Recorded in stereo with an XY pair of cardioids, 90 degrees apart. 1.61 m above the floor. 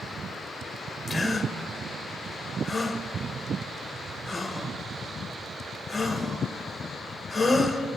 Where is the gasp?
20° left, 1.9 m.